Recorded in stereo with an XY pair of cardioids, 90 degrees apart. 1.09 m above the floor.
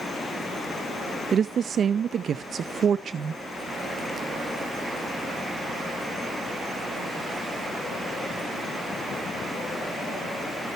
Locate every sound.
1.3 s a woman speaking: 60° right, 0.6 m